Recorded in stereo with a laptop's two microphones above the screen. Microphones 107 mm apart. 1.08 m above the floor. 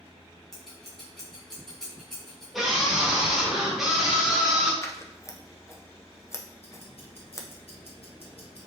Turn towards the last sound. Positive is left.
turn(degrees=60)  # may be behind; listen again after turning